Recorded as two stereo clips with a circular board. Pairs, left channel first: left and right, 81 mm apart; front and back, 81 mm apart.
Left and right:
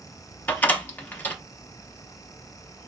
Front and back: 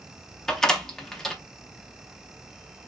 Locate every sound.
0.5 s a door slam: 70° left, 0.7 m